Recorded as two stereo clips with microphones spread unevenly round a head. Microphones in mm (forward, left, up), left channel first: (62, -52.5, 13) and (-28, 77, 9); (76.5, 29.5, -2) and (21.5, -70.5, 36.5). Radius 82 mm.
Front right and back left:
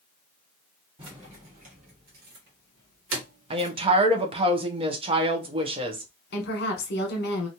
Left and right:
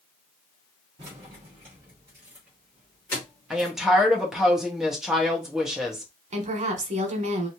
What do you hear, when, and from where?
1.0 s keys jangling: 175° right, 1.6 m; by 3.7 s 125° left, 1.1 m
3.5 s a woman speaking: 125° left, 0.7 m
6.3 s a woman speaking: 85° right, 1.1 m